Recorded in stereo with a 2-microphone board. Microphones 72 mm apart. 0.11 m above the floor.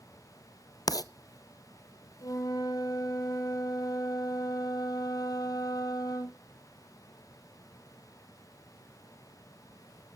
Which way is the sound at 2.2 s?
60° left (ahead or behind).